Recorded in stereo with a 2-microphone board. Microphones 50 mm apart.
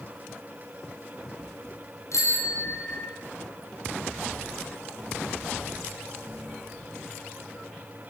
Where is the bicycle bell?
85° left, 6 m.